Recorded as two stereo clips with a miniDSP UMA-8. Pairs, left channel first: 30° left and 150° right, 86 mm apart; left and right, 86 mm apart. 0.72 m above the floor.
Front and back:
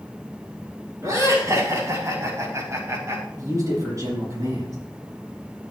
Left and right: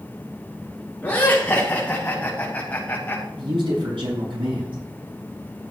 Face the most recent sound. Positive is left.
turn(degrees=-100)